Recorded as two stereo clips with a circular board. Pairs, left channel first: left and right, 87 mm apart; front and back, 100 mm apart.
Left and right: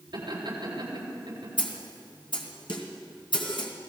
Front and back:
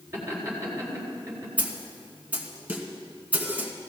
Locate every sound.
0.1 s laughter: 115° right, 7 m
1.6 s a snare drum: 105° left, 2.0 m